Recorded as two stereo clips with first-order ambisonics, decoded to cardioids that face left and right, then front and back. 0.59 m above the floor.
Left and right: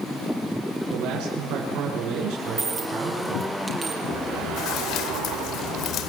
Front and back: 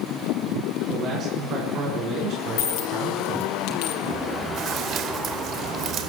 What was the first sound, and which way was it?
A man speaking, 120° right.